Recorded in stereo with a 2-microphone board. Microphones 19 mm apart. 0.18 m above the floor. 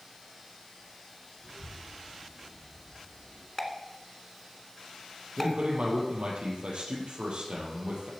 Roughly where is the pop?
Centre.